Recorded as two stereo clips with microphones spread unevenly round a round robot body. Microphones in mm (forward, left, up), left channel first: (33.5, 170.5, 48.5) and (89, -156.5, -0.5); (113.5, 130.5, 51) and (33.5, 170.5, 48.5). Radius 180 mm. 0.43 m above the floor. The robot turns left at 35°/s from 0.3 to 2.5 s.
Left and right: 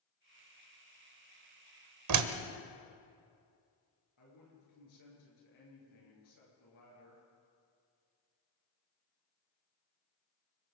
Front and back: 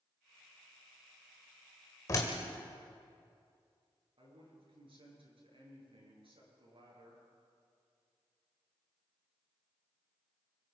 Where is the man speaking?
140° left, 8.5 m.